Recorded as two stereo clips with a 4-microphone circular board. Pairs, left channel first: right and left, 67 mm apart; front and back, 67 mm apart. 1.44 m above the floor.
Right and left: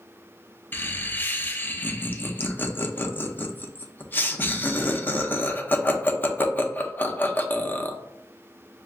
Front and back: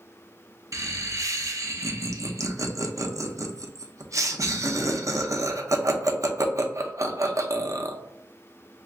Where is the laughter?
150° right, 0.6 m.